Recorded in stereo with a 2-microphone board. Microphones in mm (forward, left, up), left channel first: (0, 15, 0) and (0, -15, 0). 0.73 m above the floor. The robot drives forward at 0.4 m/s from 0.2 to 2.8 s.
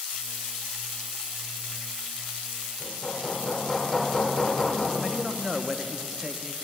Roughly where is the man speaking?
Centre.